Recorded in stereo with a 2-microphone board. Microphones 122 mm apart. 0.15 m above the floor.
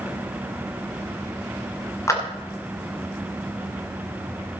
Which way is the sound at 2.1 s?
25° left (ahead or behind).